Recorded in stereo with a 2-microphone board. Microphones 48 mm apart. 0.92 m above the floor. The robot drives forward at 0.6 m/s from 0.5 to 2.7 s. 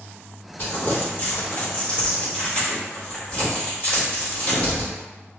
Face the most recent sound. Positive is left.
turn(degrees=30)  # may be behind; listen again after turning